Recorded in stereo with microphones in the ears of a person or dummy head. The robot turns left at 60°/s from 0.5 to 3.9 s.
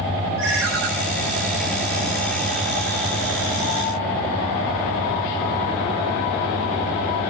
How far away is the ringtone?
About 5.5 m.